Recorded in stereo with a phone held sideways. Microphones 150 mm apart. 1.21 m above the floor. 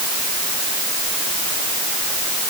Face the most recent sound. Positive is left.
No sound to turn to.